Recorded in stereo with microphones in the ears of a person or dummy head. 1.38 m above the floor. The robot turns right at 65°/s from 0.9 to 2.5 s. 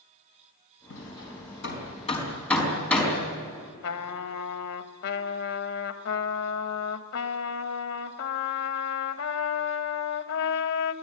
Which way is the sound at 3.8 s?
80° left.